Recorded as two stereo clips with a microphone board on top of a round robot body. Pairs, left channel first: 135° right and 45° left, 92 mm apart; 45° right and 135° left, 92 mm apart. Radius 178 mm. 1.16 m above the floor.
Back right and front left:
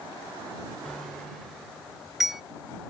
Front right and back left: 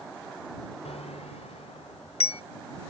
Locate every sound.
0.8 s a bicycle bell: 50° right; by 2.4 s 40° right